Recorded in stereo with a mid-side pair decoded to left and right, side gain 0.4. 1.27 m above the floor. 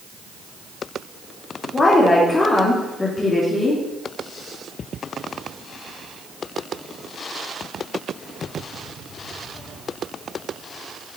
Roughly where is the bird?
I don't hear a bird.